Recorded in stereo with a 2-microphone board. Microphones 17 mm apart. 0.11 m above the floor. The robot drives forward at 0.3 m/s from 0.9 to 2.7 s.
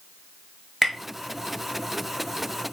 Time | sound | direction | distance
0.8 | tapping | centre (ahead or behind) | 0.8 m